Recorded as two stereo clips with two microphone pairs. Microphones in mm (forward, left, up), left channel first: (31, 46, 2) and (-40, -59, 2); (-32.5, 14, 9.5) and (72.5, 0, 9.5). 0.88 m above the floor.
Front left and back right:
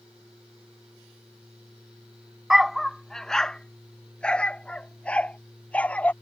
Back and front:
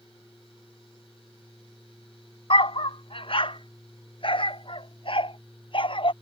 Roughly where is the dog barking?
Behind left.